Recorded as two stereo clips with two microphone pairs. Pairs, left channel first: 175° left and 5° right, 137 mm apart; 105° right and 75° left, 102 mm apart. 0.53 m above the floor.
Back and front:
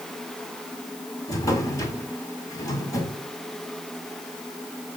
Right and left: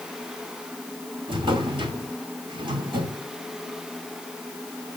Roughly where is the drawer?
Behind left.